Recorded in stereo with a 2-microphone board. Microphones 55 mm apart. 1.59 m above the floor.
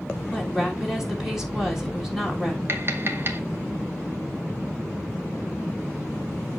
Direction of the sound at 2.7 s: 45° right (ahead or behind).